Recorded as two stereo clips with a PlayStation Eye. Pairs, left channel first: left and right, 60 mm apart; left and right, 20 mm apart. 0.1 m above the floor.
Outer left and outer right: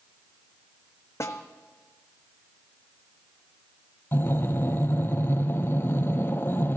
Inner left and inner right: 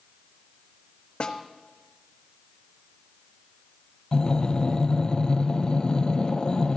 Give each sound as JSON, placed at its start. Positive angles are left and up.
{"t": 1.2, "sound": "a snare drum", "side_deg": 55, "distance_m": 1.1}
{"t": 4.1, "sound": "breathing", "side_deg": 40, "distance_m": 0.7}